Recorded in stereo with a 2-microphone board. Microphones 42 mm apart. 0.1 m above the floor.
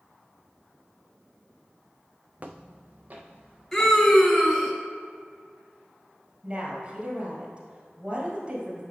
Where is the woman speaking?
25° right (ahead or behind), 1.8 m.